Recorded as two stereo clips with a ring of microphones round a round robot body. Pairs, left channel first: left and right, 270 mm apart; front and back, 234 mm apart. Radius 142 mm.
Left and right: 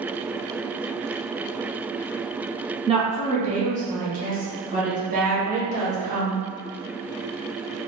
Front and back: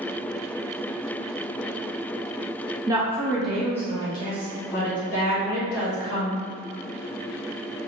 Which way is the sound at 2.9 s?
125° right.